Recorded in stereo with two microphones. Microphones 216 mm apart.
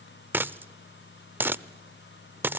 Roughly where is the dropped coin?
Centre.